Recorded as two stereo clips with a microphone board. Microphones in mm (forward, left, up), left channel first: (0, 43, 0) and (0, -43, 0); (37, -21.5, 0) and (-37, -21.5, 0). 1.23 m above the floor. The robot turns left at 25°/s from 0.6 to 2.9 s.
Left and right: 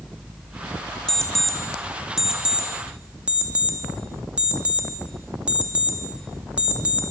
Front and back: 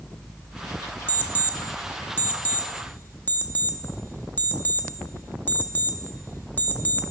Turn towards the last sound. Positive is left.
turn(degrees=-30)